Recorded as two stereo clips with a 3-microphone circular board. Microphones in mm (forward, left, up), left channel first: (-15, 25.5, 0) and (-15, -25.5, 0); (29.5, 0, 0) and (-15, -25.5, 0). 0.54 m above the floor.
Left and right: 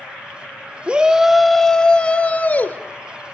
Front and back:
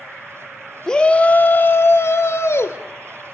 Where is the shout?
40° right, 0.7 m; by 2.8 s 40° left, 1.3 m.